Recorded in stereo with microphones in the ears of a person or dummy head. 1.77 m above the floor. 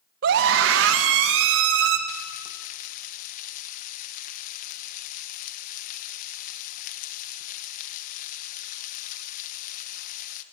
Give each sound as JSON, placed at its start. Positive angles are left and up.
{"t": 0.2, "sound": "a scream", "side_deg": -55, "distance_m": 1.2}
{"t": 2.1, "sound": "frying", "side_deg": 50, "distance_m": 1.3}